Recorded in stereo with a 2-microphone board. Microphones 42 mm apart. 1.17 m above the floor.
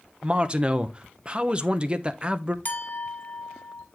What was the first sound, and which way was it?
A man speaking, 25° right (ahead or behind).